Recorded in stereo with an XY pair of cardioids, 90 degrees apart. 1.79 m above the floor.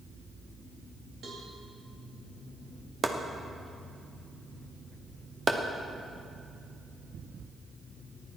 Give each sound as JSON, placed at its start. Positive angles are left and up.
{"t": 1.2, "sound": "a cowbell", "azimuth_deg": -65, "distance_m": 3.0}
{"t": 3.0, "sound": "chopping", "azimuth_deg": -35, "distance_m": 1.3}